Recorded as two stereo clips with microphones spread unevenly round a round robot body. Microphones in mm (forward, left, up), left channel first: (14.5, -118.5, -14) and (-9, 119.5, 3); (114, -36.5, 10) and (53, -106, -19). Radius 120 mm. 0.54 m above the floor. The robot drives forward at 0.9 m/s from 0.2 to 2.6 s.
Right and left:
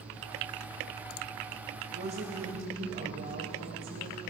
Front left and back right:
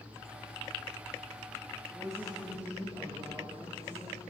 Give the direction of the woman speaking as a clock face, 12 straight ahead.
7 o'clock.